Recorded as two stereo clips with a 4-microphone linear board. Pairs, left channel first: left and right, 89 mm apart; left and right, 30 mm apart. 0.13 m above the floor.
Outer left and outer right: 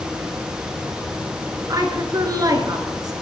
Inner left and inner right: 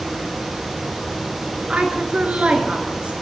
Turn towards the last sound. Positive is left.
turn(degrees=-45)  # may be behind; listen again after turning